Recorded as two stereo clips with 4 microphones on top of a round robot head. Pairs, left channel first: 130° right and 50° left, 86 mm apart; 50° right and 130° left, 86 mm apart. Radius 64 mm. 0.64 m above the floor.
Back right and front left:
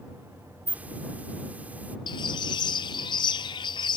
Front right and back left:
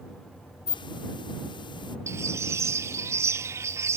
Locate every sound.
0.7 s a hiss: 25° right
2.1 s a bird: 165° right